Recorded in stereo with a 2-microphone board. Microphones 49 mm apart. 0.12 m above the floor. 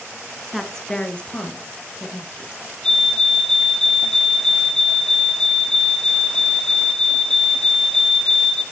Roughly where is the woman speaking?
Centre.